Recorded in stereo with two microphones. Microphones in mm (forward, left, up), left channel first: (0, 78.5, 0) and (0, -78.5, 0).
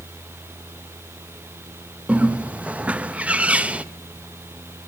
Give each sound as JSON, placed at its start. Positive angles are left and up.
{"t": 2.1, "sound": "a bird", "side_deg": -10, "distance_m": 0.7}